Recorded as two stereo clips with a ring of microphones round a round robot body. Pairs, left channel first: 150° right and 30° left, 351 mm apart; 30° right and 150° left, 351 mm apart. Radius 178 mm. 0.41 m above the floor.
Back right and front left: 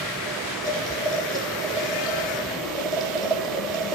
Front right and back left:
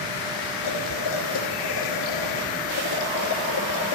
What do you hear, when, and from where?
0.6 s boiling: 70° right, 2 m